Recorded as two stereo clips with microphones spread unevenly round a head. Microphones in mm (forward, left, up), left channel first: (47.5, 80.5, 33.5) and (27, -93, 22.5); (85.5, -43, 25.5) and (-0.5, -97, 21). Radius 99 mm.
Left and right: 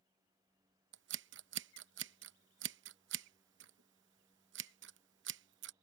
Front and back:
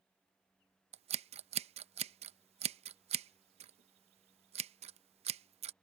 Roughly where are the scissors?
Behind right.